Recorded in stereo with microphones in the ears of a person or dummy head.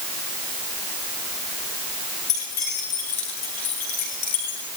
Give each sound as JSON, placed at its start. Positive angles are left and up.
{"t": 2.3, "sound": "keys jangling", "side_deg": 55, "distance_m": 7.5}